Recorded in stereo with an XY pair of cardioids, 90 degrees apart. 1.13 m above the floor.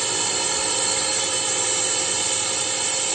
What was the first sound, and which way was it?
A drone, 30° right.